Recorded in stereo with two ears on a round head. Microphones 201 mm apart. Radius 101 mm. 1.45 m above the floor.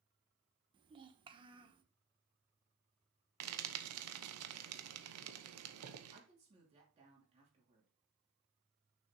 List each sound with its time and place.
0.7 s a child speaking: 20° right (ahead or behind), 1.0 m
3.4 s frying: 75° right (ahead or behind), 0.8 m
6.1 s a woman speaking: 30° right (ahead or behind), 3 m